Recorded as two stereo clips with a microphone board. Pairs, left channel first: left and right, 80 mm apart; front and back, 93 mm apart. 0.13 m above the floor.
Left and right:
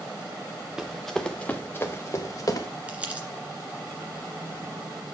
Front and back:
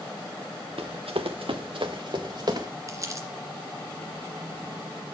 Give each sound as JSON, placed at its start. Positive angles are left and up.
{"t": 0.8, "sound": "running footsteps", "azimuth_deg": -170, "distance_m": 1.1}
{"t": 2.9, "sound": "crumpling", "azimuth_deg": -155, "distance_m": 1.9}